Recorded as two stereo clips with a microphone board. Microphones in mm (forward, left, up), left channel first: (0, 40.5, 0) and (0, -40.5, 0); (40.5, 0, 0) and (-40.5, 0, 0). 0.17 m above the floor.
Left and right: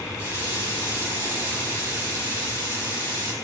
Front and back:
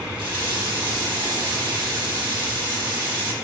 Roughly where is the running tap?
Behind right.